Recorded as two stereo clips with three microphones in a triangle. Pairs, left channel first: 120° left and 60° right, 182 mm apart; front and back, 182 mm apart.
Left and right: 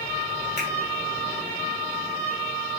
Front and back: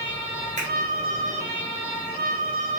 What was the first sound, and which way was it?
A finger snap, 135° left.